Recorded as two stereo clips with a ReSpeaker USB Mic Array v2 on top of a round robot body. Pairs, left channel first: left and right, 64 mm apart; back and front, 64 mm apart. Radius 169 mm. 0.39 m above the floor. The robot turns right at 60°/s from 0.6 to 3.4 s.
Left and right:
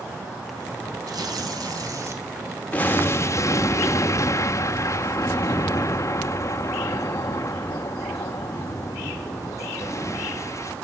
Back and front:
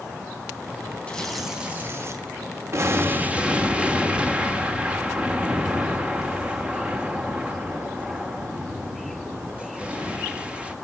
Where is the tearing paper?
110° right, 3.5 m; by 2.2 s 40° right, 3.5 m.